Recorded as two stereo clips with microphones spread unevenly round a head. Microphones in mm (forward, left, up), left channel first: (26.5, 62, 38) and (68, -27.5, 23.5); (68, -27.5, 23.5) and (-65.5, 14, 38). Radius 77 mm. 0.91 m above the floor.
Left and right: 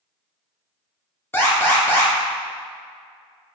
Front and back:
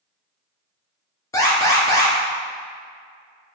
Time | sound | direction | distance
1.3 | an alarm | 45° left | 1.9 m